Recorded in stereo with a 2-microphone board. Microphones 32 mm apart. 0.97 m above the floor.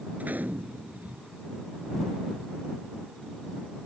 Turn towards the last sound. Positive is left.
turn(degrees=-60)  # may be behind; listen again after turning